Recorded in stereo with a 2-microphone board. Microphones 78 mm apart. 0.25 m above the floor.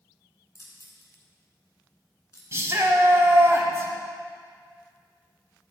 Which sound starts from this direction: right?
A shout, at 2.5 s.